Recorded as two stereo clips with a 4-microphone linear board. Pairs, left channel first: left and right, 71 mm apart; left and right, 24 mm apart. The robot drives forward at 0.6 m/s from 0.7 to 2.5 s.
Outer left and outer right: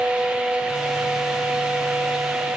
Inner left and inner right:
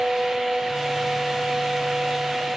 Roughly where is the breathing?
I don't hear breathing.